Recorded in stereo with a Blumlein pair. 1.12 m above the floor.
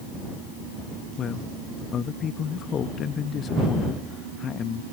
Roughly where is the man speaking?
Ahead left.